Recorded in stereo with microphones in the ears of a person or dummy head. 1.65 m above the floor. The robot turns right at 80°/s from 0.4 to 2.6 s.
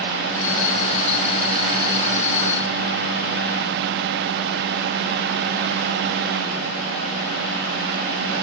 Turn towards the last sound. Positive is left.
No sound to turn to.